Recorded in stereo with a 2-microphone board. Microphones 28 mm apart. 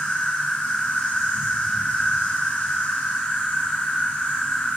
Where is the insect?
70° left (ahead or behind), 5.5 m.